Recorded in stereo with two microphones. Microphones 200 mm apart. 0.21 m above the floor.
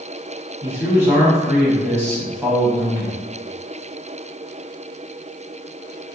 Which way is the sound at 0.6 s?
10° right (ahead or behind).